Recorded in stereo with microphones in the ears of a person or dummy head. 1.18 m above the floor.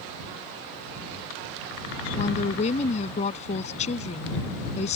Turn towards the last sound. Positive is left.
turn(degrees=40)  # may be behind; listen again after turning